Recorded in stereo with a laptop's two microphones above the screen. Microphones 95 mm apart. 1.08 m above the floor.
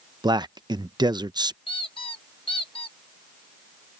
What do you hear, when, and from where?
0.2 s a man speaking: 50° right (ahead or behind)
1.7 s a squeak: 65° left (ahead or behind)